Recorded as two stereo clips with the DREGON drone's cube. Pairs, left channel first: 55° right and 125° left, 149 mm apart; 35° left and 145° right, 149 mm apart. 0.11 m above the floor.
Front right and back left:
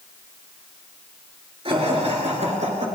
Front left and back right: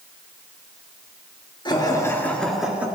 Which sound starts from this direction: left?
Laughter, at 1.6 s.